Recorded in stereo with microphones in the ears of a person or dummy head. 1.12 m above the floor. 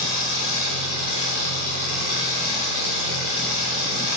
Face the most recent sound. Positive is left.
turn(degrees=-45)  # may be behind; listen again after turning